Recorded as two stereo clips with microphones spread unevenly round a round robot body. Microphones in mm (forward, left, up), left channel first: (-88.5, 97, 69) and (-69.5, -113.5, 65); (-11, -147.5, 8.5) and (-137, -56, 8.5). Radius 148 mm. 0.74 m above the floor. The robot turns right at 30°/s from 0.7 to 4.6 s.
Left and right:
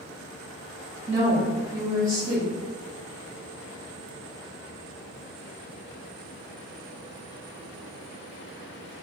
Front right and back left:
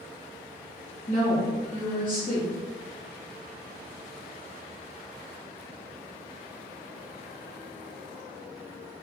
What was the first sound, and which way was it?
A woman speaking, 25° right.